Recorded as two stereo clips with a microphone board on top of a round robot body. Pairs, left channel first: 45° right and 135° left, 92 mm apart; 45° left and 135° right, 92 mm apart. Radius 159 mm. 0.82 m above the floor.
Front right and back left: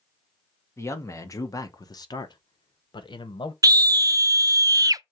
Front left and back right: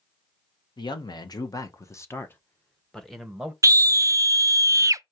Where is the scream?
Straight behind, 0.5 m.